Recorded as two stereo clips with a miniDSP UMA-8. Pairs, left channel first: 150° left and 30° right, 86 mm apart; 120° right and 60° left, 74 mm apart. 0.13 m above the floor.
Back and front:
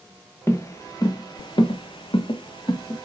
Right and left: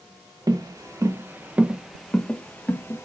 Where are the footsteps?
95° left, 1.0 m; by 3.0 s straight behind, 1.0 m.